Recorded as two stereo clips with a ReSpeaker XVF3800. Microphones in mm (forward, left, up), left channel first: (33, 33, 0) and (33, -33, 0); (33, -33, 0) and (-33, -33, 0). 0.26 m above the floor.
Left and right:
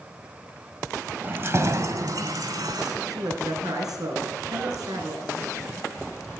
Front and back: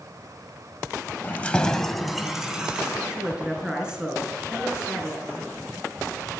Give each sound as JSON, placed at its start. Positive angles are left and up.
{"t": 1.2, "sound": "keys jangling", "azimuth_deg": -45, "distance_m": 0.8}
{"t": 3.1, "sound": "a man speaking", "azimuth_deg": -100, "distance_m": 3.0}